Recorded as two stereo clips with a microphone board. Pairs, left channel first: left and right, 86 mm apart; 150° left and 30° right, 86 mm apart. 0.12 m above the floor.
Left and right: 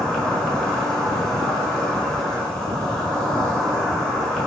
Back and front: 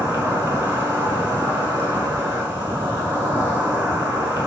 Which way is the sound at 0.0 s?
10° left.